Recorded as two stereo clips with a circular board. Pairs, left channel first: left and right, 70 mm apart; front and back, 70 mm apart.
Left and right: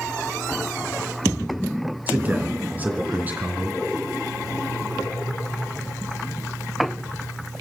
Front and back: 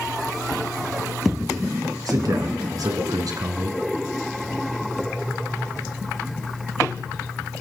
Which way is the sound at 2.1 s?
155° right.